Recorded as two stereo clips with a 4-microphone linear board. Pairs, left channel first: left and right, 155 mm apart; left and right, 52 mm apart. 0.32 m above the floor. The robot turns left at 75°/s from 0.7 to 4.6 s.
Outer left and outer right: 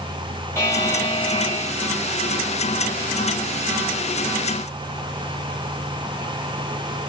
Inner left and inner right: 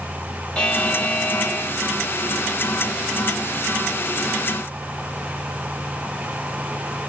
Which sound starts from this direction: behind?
A buzzer, at 0.6 s.